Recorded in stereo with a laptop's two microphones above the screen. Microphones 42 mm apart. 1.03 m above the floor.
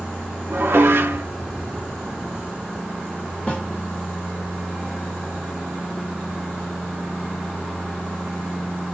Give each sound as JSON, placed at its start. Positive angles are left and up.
{"t": 0.5, "sound": "dishes clattering", "side_deg": -70, "distance_m": 0.7}
{"t": 3.5, "sound": "a snare drum", "side_deg": 35, "distance_m": 1.2}